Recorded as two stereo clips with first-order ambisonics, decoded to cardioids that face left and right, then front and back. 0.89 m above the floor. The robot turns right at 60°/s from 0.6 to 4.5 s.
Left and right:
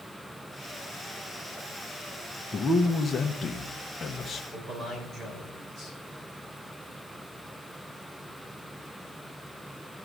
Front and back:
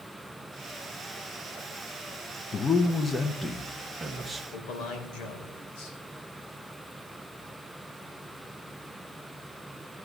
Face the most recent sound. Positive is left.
turn(degrees=-20)